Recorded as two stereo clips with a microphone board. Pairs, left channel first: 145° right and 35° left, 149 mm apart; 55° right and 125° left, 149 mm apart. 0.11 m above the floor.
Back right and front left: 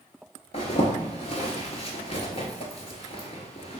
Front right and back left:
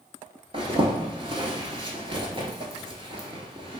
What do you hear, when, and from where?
0.5 s a zipper: 175° left, 0.6 m